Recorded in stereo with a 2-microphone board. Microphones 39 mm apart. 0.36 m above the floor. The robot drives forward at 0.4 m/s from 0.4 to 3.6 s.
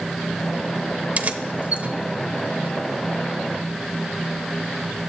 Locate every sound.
1.2 s keys jangling: 40° right (ahead or behind), 0.7 m